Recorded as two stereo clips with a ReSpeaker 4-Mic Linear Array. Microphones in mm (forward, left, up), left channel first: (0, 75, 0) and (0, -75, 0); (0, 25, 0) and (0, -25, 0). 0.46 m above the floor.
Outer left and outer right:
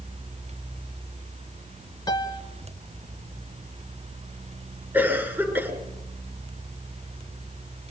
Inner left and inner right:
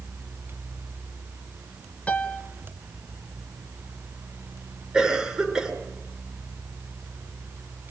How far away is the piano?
About 1.9 m.